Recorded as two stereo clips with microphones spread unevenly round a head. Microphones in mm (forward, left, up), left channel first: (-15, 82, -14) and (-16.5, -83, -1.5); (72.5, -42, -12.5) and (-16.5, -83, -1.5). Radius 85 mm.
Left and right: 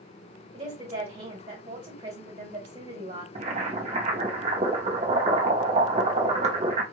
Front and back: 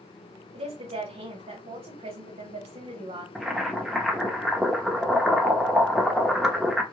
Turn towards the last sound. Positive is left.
turn(degrees=-70)